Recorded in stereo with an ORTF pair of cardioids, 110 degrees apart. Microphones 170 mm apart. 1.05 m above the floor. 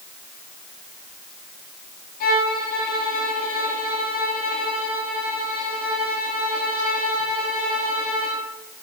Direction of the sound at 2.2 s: 70° left.